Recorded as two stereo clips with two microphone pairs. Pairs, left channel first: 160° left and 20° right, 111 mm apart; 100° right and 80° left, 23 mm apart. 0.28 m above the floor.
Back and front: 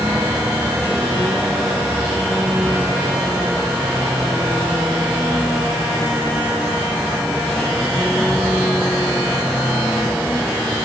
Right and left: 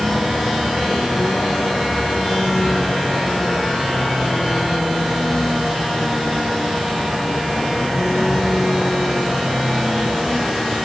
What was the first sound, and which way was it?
A vehicle, 100° right.